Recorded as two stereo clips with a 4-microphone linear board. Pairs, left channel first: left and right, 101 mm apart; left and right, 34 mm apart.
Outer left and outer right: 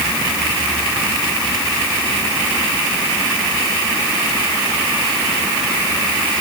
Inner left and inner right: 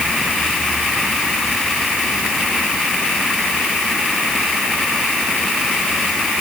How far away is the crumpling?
No crumpling in this recording.